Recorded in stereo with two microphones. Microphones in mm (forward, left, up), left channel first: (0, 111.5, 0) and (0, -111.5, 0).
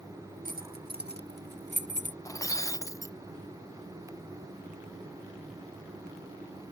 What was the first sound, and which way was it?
Keys jangling, 40° right (ahead or behind).